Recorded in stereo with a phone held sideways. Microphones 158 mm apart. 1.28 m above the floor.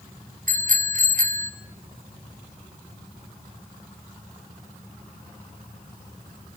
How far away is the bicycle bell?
About 3.5 m.